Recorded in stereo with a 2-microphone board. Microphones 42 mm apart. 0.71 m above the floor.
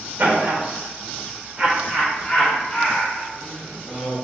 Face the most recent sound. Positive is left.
turn(degrees=20)  # may be behind; listen again after turning